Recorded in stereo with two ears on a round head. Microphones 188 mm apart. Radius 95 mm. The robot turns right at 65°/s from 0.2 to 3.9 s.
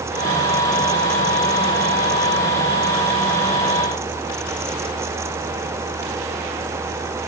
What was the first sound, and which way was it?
Only background noise.